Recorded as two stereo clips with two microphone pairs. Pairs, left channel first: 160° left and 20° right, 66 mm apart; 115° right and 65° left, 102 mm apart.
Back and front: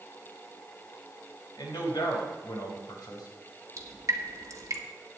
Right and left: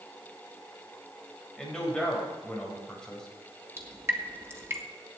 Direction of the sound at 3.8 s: 5° left.